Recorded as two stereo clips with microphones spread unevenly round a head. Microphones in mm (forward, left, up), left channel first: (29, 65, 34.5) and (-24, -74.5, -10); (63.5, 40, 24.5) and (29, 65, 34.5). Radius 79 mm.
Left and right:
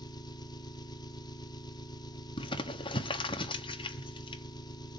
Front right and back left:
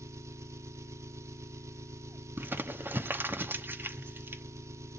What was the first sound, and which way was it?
An engine running, 140° left.